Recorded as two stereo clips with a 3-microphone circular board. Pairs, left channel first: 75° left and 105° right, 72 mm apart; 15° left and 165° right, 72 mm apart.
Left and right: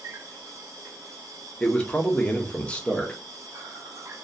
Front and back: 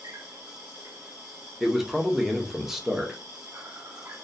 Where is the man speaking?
120° left, 0.5 m.